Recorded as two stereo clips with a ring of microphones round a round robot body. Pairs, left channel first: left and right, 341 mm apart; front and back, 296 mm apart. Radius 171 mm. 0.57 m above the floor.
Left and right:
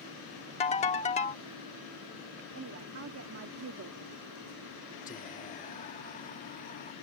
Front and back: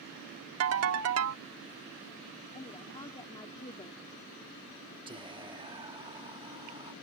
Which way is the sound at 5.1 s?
125° left.